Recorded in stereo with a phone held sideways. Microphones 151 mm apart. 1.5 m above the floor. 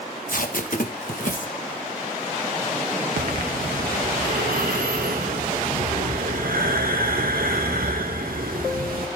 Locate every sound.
0.3 s tape being pulled: 65° left (ahead or behind), 1.8 m
3.2 s breathing: 75° right (ahead or behind), 2.5 m